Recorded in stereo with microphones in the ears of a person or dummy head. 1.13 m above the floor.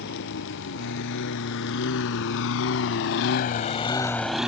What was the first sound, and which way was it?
A lawn mower, 60° left (ahead or behind).